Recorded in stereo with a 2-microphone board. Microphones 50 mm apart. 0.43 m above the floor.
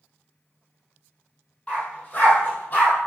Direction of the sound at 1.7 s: 25° left (ahead or behind).